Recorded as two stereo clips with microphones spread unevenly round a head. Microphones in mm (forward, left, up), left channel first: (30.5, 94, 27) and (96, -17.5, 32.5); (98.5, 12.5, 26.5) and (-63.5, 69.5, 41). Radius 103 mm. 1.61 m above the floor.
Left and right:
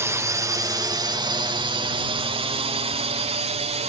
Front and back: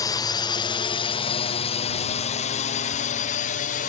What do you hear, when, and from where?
0.0 s a drone: 15° right; by 3.9 s 45° right